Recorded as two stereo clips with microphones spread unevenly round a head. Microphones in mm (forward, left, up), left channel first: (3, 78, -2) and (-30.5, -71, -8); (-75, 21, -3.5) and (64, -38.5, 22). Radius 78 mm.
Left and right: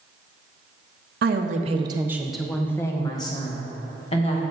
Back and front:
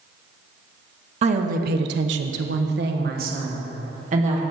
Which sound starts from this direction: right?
A woman speaking, at 1.2 s.